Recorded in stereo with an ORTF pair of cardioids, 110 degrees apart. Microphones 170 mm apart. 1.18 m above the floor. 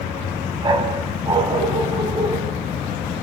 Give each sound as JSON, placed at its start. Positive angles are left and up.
{"t": 0.6, "sound": "a dog barking", "azimuth_deg": -25, "distance_m": 3.5}